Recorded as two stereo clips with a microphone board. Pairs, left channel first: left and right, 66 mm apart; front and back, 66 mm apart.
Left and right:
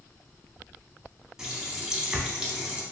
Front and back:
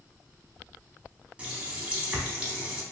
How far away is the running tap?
About 0.7 m.